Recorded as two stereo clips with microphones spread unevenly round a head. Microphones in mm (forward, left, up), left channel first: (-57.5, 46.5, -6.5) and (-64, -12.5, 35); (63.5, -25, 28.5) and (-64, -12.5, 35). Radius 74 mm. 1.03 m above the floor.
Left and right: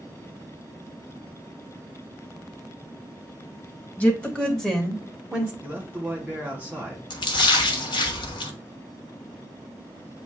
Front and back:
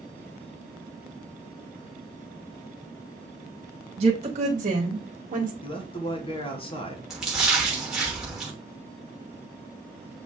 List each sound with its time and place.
4.0 s a woman speaking: 130° left, 1.2 m; by 5.5 s straight behind, 1.2 m
5.6 s a man speaking: 10° left, 1.1 m
7.1 s a splash: 90° left, 0.9 m